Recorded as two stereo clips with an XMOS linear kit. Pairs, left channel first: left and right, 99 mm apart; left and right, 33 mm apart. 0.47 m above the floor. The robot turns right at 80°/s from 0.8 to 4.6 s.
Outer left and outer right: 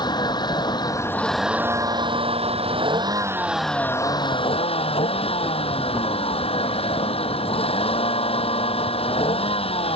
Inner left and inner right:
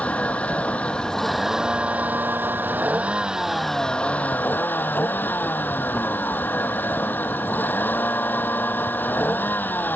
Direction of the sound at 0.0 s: 135° left.